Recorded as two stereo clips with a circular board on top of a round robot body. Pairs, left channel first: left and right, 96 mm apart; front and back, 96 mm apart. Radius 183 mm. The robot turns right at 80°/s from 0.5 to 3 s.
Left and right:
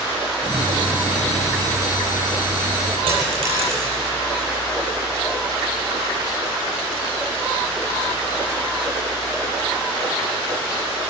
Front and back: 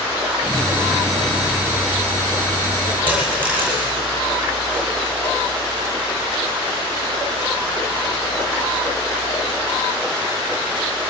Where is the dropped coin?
105° right, 9.5 m.